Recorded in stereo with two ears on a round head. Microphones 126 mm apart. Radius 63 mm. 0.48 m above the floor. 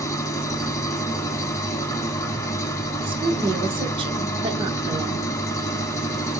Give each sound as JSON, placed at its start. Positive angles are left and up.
{"t": 0.0, "sound": "an engine running", "side_deg": 20, "distance_m": 0.8}
{"t": 3.0, "sound": "a woman speaking", "side_deg": -35, "distance_m": 0.9}